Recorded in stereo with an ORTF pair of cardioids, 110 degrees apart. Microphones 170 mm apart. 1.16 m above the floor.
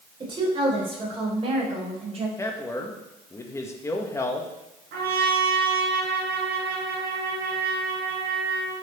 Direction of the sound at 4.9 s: 65° right.